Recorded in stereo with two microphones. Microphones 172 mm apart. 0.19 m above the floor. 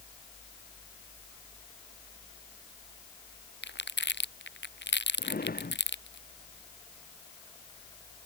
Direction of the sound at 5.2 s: 55° left (ahead or behind).